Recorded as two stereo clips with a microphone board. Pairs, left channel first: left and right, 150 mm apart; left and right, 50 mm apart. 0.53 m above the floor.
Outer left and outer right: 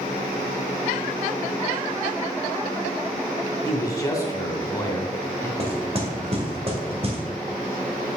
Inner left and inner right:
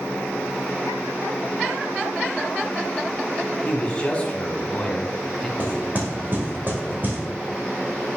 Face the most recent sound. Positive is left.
turn(degrees=-40)  # may be behind; listen again after turning